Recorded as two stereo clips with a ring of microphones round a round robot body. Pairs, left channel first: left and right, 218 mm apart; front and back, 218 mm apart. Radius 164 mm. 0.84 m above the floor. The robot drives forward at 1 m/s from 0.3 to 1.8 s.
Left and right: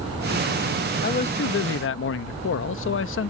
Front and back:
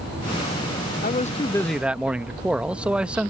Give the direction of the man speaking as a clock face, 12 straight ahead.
10 o'clock.